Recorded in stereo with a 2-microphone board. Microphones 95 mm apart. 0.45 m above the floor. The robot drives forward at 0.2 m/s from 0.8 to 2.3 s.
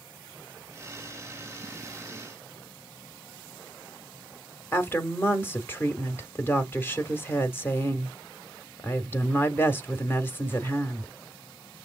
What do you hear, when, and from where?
4.7 s a woman speaking: 25° left (ahead or behind), 0.9 m